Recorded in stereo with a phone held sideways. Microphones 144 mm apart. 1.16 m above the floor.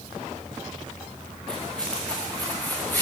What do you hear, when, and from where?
1.5 s footsteps: 5° left (ahead or behind), 7 m; by 3.0 s 15° left (ahead or behind), 7 m